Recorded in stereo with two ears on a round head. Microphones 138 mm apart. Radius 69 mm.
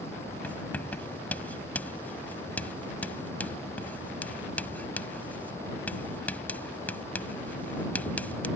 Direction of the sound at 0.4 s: 10° left (ahead or behind).